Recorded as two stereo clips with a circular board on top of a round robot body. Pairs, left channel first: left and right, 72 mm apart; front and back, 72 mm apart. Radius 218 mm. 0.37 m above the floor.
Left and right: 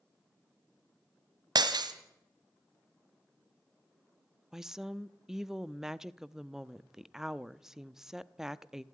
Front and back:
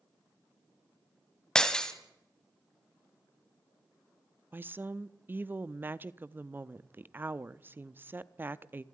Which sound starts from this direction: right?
Breaking glass, at 1.6 s.